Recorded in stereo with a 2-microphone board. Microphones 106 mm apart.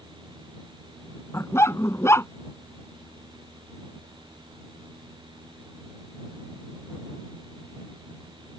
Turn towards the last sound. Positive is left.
turn(degrees=25)  # may be behind; listen again after turning